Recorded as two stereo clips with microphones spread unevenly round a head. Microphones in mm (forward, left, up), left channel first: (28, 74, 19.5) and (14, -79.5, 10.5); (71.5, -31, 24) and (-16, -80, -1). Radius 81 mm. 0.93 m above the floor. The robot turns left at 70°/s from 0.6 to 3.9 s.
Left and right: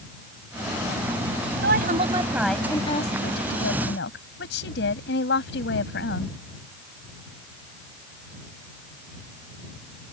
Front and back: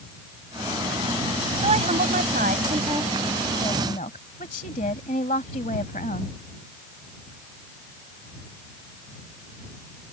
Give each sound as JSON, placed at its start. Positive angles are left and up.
{"t": 1.6, "sound": "a woman speaking", "azimuth_deg": -125}